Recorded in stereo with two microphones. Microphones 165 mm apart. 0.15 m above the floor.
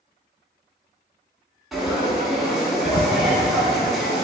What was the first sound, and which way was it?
Frying, centre (ahead or behind).